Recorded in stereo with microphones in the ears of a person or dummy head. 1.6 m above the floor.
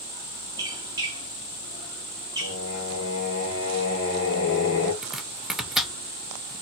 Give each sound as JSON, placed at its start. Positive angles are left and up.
{"t": 0.6, "sound": "a squeak", "side_deg": -20, "distance_m": 1.4}
{"t": 2.4, "sound": "singing", "side_deg": 50, "distance_m": 1.6}
{"t": 5.0, "sound": "chopping", "side_deg": 0, "distance_m": 0.7}